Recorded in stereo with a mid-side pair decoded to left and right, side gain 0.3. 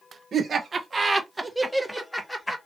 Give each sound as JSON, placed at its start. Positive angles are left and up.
{"t": 0.3, "sound": "laughter", "azimuth_deg": -65, "distance_m": 1.3}